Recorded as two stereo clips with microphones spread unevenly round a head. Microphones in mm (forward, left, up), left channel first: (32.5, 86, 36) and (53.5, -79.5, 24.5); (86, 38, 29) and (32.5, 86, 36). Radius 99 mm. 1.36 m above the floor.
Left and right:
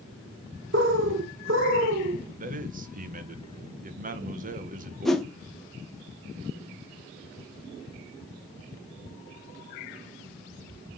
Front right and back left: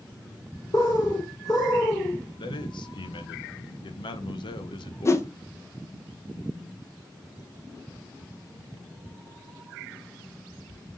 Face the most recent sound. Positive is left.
turn(degrees=10)